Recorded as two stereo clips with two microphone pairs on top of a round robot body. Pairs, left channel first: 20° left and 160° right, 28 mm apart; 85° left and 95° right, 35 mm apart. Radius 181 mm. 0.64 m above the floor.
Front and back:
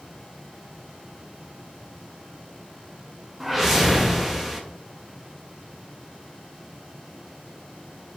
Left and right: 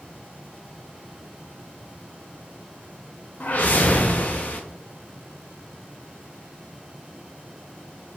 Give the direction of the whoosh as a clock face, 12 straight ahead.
8 o'clock.